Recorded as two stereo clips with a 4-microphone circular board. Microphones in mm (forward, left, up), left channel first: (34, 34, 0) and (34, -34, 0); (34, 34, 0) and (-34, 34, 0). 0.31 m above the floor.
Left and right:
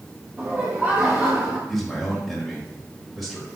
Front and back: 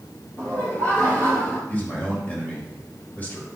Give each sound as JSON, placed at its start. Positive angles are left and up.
{"t": 0.4, "sound": "laughter", "azimuth_deg": -50, "distance_m": 2.0}
{"t": 1.7, "sound": "a man speaking", "azimuth_deg": -5, "distance_m": 1.5}